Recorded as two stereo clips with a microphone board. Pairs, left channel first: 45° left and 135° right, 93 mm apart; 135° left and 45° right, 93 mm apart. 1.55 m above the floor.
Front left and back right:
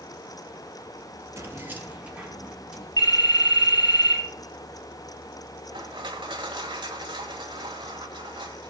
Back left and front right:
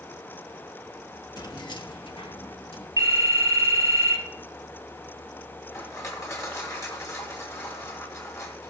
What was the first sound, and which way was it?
Keys jangling, 170° left.